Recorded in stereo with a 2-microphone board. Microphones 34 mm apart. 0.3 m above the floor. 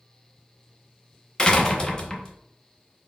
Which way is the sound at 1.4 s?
25° left (ahead or behind).